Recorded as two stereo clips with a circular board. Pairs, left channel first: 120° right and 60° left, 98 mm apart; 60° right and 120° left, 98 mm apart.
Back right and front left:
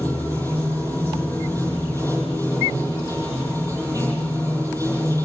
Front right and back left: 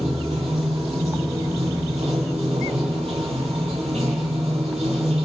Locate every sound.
0.0 s running water: 115° left, 9.5 m